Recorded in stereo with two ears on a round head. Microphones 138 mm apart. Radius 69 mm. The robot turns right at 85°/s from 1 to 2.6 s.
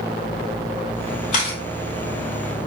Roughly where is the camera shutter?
Left.